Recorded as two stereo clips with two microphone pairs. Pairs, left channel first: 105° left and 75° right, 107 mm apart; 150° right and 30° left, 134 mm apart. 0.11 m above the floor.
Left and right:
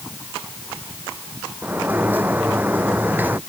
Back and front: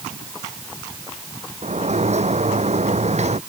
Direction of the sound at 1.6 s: 5° right.